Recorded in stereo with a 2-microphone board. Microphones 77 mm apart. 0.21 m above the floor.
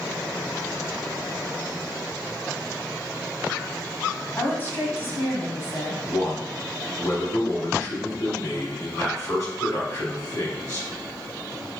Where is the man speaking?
50° left (ahead or behind), 1.5 m.